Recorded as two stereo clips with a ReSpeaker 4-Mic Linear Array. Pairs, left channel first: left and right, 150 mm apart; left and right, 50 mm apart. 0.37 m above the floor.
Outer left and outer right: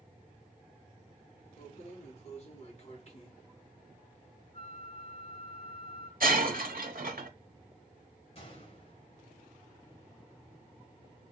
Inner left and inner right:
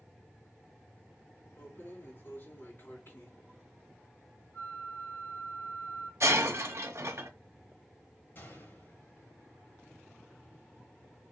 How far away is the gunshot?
About 1.9 m.